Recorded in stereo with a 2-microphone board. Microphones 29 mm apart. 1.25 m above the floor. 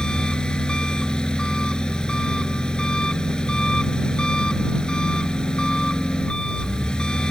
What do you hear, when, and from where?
0.0 s an engine running: 30° left (ahead or behind)